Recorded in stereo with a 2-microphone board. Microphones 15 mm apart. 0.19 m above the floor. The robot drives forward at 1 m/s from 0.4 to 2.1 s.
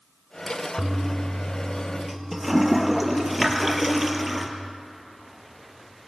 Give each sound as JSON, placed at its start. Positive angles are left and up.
{"t": 0.8, "sound": "a toilet flushing", "side_deg": -20, "distance_m": 0.9}